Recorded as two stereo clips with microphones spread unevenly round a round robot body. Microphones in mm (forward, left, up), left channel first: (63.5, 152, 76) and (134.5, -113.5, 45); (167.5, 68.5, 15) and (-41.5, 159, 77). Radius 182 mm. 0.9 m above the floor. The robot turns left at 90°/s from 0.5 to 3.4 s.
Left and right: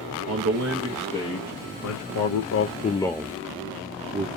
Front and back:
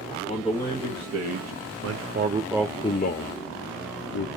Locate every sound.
0.3 s a man speaking: 110° right, 0.7 m; by 4.3 s 10° right, 0.7 m